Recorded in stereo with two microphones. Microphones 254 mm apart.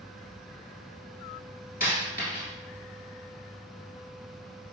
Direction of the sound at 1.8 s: 35° left (ahead or behind).